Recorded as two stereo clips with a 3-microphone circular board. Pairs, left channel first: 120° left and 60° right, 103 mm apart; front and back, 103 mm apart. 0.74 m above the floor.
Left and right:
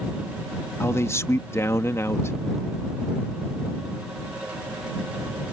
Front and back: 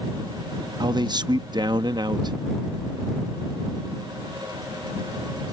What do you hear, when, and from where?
0.8 s a man speaking: 170° left